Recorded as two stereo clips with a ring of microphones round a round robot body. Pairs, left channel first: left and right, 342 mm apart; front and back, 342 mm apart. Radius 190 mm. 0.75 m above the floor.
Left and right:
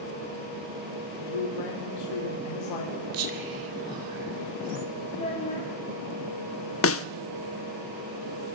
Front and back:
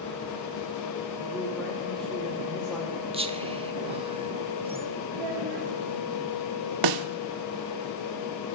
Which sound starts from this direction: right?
Whispering, at 3.1 s.